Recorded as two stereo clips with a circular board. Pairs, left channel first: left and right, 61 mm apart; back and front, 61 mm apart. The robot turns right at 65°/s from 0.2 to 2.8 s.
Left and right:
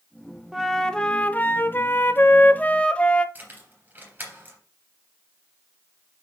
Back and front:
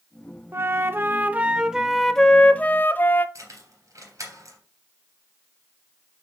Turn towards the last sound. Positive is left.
turn(degrees=-30)